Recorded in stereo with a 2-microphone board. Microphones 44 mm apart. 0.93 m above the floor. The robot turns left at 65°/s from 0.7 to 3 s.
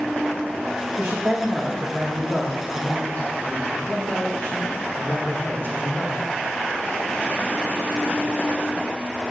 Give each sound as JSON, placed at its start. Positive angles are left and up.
{"t": 1.0, "sound": "a man speaking", "azimuth_deg": -120, "distance_m": 1.3}